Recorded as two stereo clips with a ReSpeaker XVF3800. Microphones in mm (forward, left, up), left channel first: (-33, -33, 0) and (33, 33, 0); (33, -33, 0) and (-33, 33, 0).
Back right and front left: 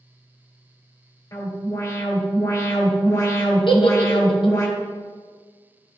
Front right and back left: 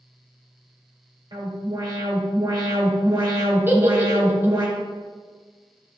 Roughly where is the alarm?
Behind.